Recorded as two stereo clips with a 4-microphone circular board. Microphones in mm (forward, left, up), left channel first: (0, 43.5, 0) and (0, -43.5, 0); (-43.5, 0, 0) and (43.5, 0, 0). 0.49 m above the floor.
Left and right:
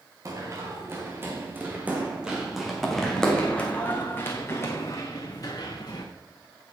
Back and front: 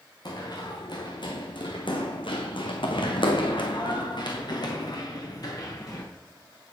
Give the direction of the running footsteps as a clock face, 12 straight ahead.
5 o'clock.